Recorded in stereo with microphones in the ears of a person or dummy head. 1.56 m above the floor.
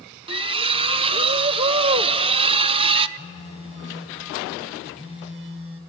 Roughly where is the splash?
Right.